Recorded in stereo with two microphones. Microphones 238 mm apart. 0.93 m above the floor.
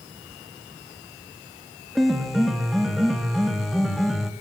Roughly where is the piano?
Centre.